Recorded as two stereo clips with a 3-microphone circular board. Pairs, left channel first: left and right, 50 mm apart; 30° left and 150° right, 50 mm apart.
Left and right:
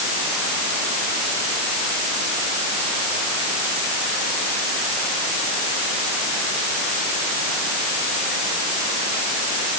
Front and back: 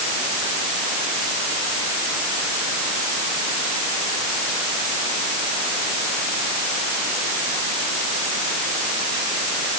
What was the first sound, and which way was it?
Only background noise.